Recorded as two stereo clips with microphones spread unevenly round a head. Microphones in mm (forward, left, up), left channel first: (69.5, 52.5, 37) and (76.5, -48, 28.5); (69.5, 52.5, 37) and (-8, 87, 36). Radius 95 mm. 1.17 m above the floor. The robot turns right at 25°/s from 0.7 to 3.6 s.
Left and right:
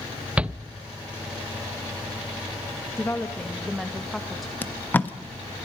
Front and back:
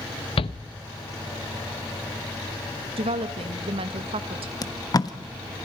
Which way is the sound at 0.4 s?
10° right.